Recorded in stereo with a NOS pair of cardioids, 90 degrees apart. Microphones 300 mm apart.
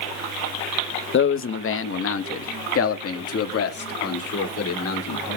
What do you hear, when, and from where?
1.1 s a man speaking: 40° left, 0.9 m; by 5.4 s 55° left, 3.5 m